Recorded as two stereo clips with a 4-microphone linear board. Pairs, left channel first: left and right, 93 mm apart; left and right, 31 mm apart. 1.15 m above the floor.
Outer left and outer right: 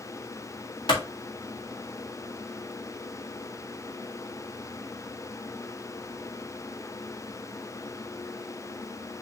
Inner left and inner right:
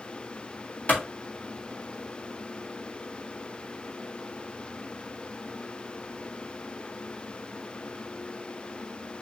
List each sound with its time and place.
0.9 s a clap: 60° left (ahead or behind), 3.5 m